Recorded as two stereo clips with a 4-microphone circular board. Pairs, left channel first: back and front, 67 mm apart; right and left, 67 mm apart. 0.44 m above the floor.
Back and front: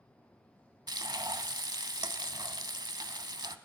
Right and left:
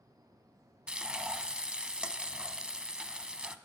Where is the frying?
10° left, 0.7 m.